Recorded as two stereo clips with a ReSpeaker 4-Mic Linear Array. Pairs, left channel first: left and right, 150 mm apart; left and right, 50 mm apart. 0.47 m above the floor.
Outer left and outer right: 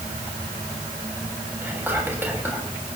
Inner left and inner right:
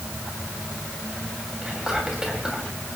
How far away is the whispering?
About 3 m.